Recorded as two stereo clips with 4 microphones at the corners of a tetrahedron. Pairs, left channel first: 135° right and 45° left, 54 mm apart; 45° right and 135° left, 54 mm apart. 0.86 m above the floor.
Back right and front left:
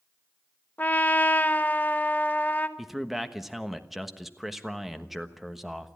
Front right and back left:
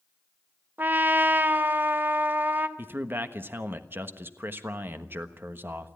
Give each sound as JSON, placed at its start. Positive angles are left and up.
{"t": 0.8, "sound": "a trumpet", "azimuth_deg": 175, "distance_m": 1.1}
{"t": 2.8, "sound": "a man speaking", "azimuth_deg": 130, "distance_m": 1.2}